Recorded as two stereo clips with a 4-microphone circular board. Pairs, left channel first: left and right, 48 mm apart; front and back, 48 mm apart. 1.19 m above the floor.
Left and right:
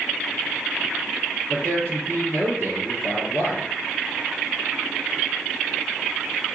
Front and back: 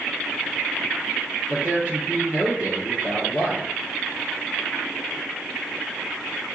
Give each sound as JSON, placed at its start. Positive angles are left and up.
{"t": 1.5, "sound": "a man speaking", "azimuth_deg": -120, "distance_m": 3.5}